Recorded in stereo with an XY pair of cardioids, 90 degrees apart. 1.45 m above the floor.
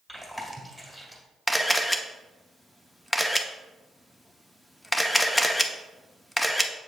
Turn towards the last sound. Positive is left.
turn(degrees=10)